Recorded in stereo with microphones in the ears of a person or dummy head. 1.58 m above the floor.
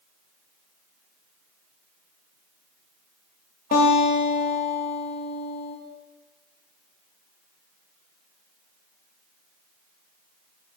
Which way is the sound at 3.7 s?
40° left (ahead or behind).